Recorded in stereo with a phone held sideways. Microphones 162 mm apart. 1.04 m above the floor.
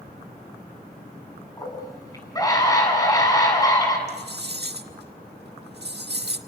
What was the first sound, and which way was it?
A scream, 20° left (ahead or behind).